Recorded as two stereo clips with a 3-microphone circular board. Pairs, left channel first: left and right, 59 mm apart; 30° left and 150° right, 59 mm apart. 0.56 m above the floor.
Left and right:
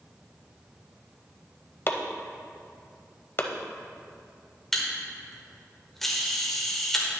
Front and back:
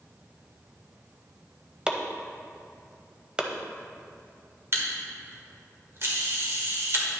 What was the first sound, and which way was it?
Chopping, 135° left.